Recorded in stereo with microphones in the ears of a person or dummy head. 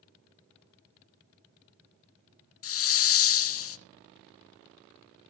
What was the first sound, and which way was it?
A hiss, 75° left (ahead or behind).